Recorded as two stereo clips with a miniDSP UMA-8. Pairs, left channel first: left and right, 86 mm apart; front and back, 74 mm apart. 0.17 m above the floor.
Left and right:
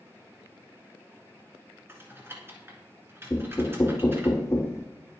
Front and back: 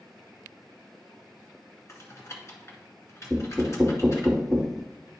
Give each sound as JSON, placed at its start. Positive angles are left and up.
{"t": 1.9, "sound": "typing on a keyboard", "azimuth_deg": -35, "distance_m": 2.0}
{"t": 3.3, "sound": "knocking", "azimuth_deg": 85, "distance_m": 0.8}